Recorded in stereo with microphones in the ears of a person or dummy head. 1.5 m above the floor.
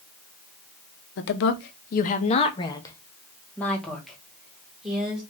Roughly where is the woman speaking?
Left.